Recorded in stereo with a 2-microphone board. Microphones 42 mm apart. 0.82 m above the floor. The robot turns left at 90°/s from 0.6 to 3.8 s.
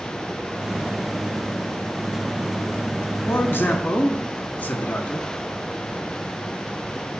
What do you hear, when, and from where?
3.2 s a man speaking: 90° left, 1.6 m; by 5.3 s 40° left, 1.6 m